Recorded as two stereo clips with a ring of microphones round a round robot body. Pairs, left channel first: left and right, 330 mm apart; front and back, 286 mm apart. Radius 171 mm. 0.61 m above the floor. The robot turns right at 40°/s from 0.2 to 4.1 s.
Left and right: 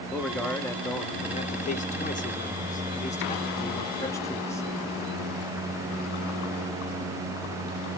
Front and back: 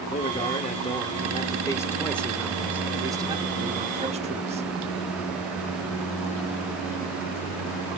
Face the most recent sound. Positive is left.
turn(degrees=160)